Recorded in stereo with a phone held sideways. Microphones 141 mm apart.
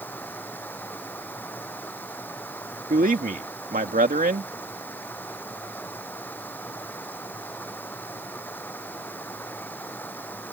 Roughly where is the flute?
No flute in this recording.